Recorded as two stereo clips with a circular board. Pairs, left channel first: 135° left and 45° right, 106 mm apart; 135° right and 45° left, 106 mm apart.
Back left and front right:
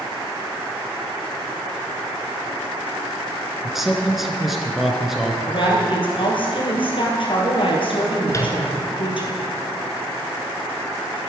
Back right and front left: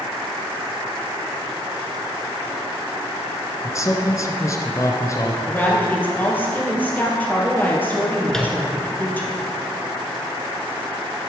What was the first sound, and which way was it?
A man speaking, 130° right.